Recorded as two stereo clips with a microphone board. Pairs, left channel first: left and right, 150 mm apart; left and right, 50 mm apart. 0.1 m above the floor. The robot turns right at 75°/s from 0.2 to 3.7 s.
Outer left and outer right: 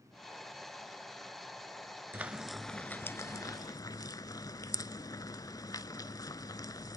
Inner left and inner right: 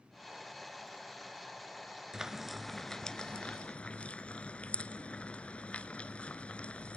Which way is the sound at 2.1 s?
15° right (ahead or behind).